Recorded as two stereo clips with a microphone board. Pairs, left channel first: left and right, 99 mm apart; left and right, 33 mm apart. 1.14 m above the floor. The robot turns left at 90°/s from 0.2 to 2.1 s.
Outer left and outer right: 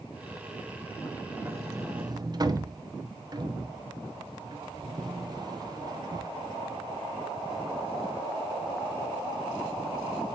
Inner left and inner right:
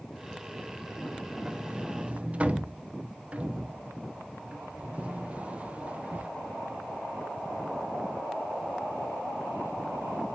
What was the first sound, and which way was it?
A sliding door, 20° right (ahead or behind).